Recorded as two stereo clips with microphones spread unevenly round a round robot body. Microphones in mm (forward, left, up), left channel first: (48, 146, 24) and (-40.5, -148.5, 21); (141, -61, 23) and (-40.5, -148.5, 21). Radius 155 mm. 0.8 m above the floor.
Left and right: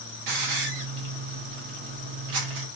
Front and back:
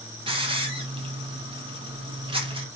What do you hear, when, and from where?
0.3 s a hiss: 90° right, 0.8 m